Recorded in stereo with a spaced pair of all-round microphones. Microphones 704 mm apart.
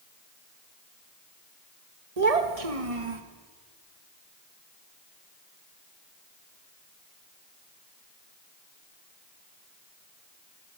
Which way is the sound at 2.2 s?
60° right (ahead or behind).